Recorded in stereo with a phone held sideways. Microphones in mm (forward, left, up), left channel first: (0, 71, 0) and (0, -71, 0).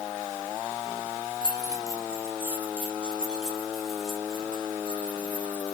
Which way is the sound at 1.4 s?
30° right (ahead or behind).